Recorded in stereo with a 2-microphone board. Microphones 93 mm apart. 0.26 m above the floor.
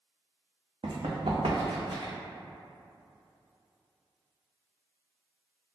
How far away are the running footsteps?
About 1.0 m.